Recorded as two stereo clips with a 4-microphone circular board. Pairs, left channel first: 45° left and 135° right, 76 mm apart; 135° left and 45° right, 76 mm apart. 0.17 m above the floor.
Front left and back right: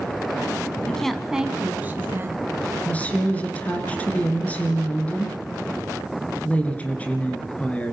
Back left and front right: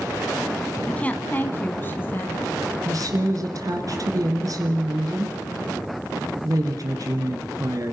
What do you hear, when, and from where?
0.9 s a woman speaking: 100° left, 1.1 m; by 2.8 s 170° right, 1.9 m
2.9 s a woman speaking: 25° right, 2 m